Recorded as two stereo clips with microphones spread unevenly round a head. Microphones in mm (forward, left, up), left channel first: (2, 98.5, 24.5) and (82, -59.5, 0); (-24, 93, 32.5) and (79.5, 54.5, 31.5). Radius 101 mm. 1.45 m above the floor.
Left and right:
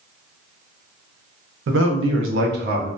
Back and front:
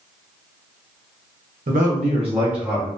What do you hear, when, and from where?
1.7 s a man speaking: 50° right, 0.7 m; by 2.9 s 125° right, 0.5 m